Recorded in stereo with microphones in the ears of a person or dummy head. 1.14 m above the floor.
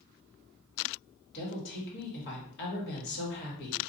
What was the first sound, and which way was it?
A woman speaking, 60° left (ahead or behind).